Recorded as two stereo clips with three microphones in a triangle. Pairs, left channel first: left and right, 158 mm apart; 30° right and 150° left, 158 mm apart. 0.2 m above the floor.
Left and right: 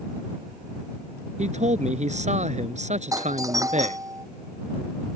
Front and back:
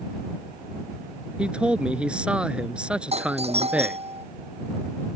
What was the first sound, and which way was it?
A man speaking, 125° right.